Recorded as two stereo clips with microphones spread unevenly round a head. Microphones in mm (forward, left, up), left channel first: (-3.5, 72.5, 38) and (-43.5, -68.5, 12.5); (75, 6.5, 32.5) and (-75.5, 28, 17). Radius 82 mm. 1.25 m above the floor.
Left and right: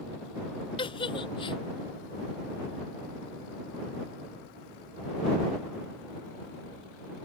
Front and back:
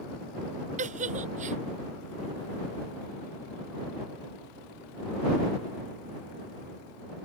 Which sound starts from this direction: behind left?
A giggle, at 0.8 s.